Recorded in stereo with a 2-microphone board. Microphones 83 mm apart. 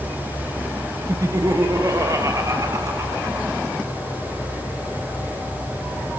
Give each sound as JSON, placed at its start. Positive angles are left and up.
{"t": 1.1, "sound": "laughter", "side_deg": -40, "distance_m": 1.4}